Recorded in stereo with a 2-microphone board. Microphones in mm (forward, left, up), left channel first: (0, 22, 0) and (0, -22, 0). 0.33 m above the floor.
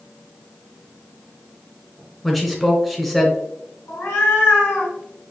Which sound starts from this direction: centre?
A man speaking, at 2.2 s.